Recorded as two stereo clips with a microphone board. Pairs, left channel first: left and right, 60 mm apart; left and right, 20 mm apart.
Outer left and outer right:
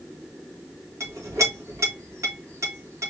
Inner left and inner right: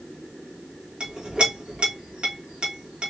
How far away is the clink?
About 1.7 m.